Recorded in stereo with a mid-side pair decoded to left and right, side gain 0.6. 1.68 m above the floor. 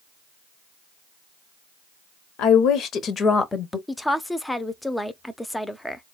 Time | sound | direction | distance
2.4 | a woman speaking | 70° left | 1.1 m
3.9 | a woman speaking | 5° left | 0.7 m